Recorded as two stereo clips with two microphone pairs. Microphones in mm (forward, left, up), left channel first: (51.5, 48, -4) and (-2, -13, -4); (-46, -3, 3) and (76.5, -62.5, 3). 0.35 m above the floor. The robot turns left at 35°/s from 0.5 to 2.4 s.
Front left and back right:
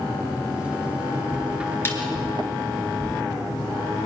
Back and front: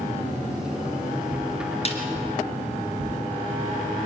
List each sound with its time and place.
1.9 s a snare drum: 110° left, 3 m; by 2.0 s 105° left, 3 m